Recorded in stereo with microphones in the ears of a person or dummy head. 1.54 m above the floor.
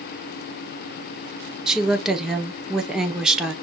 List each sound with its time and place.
1.7 s a woman speaking: centre (ahead or behind), 1.0 m